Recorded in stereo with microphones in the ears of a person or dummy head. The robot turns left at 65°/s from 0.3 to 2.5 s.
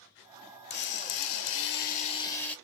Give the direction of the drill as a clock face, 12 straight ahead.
8 o'clock.